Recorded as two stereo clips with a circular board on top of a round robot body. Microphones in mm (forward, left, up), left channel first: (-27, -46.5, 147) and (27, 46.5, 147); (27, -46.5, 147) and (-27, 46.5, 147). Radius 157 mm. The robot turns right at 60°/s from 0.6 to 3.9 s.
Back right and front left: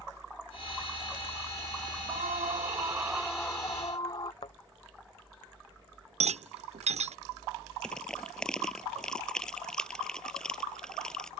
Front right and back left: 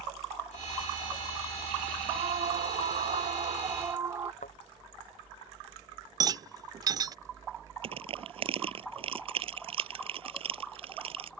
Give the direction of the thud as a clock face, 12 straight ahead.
2 o'clock.